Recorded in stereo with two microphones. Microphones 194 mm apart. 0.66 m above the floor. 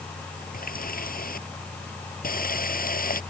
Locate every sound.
0.5 s a running tap: 50° left (ahead or behind)